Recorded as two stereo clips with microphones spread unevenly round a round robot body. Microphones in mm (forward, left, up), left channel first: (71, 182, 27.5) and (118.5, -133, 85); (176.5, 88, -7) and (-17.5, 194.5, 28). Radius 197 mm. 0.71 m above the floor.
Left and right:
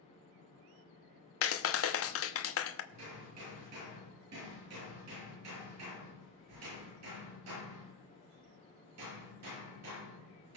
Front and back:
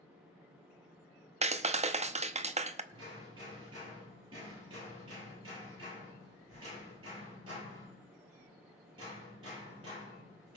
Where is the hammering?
130° right, 8 m.